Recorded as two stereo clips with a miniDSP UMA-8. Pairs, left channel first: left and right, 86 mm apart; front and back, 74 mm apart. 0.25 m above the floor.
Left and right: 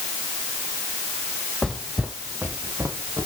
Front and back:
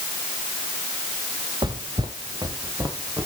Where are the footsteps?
175° left, 1.5 m; by 3.3 s 140° right, 3 m.